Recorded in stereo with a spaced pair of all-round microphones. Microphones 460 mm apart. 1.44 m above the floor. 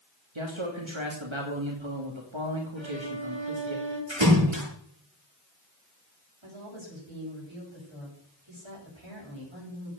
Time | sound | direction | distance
0.3 | a man speaking | 80° right | 3 m
2.8 | a violin | 80° right | 6 m
4.1 | a splash | 75° right (ahead or behind) | 9 m
6.4 | a woman speaking | 85° right | 8 m